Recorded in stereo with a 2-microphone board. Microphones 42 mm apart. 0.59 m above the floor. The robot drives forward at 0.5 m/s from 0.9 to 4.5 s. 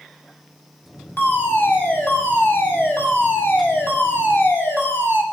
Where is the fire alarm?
55° left (ahead or behind), 6 m; by 5.2 s 70° left (ahead or behind), 5.5 m.